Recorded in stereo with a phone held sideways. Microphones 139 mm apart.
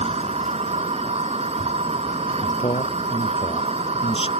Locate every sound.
0.0 s a machine running: 50° right (ahead or behind)
2.4 s a man speaking: 45° left (ahead or behind)